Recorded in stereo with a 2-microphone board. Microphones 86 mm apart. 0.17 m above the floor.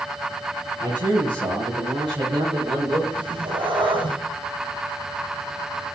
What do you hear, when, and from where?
0.8 s a man speaking: 55° right (ahead or behind), 5.5 m; by 3.0 s 75° right (ahead or behind), 7.5 m
3.1 s a cat meowing: 75° right (ahead or behind), 2.5 m